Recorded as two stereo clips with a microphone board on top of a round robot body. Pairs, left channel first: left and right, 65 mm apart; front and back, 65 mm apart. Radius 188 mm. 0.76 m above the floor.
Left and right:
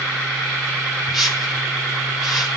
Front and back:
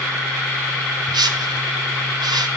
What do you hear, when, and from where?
1.1 s a whoosh: 175° right, 0.7 m